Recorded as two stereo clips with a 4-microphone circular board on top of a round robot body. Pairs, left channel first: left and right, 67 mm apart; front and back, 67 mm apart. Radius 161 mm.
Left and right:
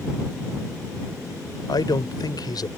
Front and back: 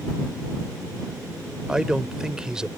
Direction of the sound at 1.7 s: 100° left.